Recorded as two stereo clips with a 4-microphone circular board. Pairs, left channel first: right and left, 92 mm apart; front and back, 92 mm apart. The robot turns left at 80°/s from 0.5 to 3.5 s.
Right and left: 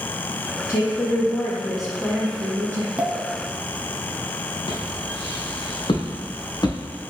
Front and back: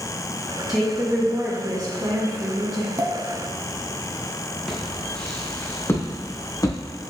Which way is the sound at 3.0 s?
160° left.